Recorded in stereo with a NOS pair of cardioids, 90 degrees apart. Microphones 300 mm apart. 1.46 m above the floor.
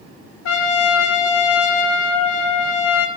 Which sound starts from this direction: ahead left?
A trumpet, at 0.5 s.